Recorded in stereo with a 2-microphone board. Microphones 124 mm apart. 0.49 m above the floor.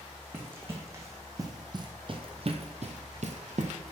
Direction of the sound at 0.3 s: 15° right (ahead or behind).